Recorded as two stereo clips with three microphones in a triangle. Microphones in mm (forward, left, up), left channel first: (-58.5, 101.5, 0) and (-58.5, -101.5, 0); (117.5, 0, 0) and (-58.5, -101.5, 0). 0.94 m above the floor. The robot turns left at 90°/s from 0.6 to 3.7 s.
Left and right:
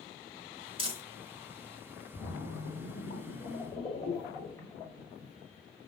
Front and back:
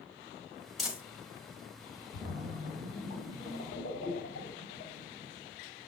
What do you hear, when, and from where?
0.8 s crumpling: 60° right, 1.0 m; by 1.0 s 80° right, 1.0 m
2.1 s a splash: 160° left, 1.3 m; by 5.3 s 20° left, 1.3 m